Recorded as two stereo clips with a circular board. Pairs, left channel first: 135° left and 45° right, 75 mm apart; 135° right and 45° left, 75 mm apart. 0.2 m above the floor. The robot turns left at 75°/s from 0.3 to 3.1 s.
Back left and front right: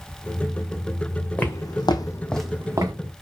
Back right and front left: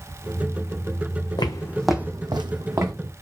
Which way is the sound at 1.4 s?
155° right.